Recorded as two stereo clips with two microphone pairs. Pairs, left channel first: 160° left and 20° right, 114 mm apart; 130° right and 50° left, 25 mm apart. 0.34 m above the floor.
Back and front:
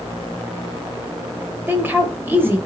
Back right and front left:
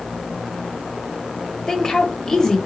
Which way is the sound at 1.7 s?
90° right.